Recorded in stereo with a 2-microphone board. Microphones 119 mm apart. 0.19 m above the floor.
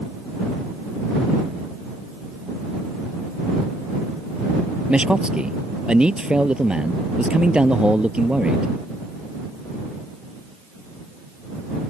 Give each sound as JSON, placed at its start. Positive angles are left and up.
{"t": 4.9, "sound": "a man speaking", "side_deg": -10}